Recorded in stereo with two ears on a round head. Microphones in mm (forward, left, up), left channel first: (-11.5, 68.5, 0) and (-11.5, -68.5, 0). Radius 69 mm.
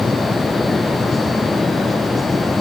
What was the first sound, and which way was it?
Only background noise.